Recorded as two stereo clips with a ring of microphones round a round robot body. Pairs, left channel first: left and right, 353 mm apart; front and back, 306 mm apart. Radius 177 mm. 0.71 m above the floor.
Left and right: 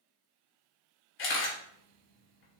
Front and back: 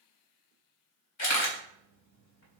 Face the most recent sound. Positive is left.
turn(degrees=35)